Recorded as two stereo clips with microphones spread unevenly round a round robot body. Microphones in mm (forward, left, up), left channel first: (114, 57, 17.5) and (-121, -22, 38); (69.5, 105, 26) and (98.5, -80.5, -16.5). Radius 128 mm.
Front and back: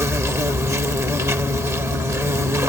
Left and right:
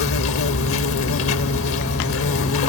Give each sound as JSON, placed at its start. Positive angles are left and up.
{"t": 0.0, "sound": "an insect", "azimuth_deg": 120}